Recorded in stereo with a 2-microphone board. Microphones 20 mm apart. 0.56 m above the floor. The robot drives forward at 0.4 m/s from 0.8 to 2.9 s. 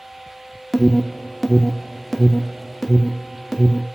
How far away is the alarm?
About 1.2 m.